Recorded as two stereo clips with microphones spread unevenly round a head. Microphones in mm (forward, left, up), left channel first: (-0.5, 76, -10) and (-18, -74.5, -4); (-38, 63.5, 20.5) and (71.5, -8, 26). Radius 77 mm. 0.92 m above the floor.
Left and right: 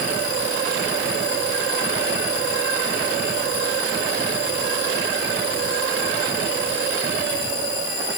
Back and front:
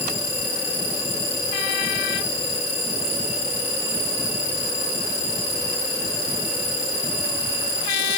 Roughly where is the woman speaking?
No woman speaking in this recording.